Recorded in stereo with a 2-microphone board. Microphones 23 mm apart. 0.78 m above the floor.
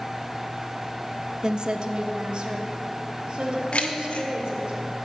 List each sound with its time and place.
1.4 s a woman speaking: 40° right (ahead or behind), 0.6 m; by 4.7 s 50° right (ahead or behind), 2.5 m
3.7 s keys jangling: 70° left (ahead or behind), 1.0 m